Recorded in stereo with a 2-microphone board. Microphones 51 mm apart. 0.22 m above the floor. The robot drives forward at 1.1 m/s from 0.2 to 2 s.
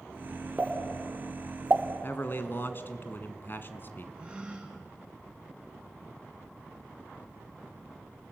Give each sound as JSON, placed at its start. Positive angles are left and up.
{"t": 0.6, "sound": "a pop", "side_deg": -25, "distance_m": 2.0}
{"t": 2.0, "sound": "a man speaking", "side_deg": 45, "distance_m": 1.8}
{"t": 4.2, "sound": "a gasp", "side_deg": -20, "distance_m": 3.5}